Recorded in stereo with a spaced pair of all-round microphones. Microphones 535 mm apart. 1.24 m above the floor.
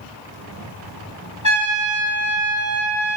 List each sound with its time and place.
1.4 s a trumpet: 35° left (ahead or behind), 0.7 m